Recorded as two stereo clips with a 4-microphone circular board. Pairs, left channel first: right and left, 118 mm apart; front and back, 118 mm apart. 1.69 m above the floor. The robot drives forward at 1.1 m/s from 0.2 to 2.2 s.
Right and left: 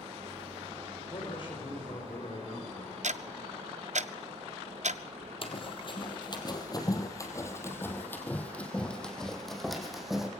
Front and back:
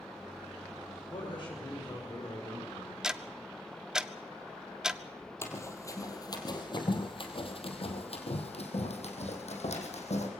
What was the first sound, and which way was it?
A man speaking, 45° right.